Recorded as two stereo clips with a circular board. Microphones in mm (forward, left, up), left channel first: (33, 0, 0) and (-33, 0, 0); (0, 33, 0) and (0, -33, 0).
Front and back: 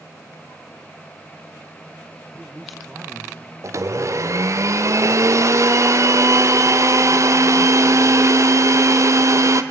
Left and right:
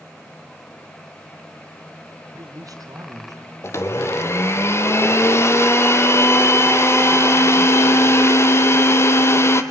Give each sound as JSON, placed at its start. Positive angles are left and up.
{"t": 2.3, "sound": "a man speaking", "azimuth_deg": -80, "distance_m": 3.0}
{"t": 3.6, "sound": "a blender", "azimuth_deg": 140, "distance_m": 1.5}